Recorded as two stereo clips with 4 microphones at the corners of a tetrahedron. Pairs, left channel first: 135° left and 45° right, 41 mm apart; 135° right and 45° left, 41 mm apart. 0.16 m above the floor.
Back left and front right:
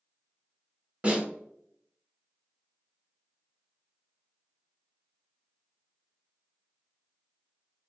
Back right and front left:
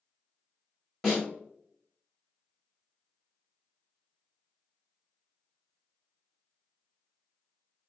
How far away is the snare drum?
About 1.9 m.